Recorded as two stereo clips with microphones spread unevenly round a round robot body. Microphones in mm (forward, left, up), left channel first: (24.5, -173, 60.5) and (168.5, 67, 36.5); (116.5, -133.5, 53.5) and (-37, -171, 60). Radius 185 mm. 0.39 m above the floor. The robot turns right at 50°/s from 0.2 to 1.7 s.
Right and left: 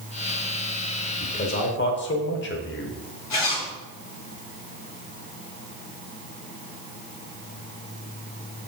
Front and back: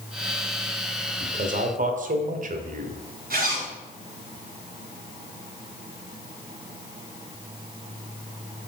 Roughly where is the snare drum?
No snare drum in this recording.